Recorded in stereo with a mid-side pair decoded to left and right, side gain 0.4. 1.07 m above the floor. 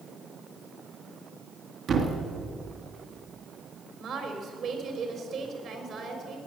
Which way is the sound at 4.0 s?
60° right.